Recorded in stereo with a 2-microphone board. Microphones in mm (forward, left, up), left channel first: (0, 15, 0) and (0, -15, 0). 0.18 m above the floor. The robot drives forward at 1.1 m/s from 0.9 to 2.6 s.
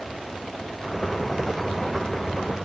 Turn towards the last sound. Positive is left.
No sound to turn to.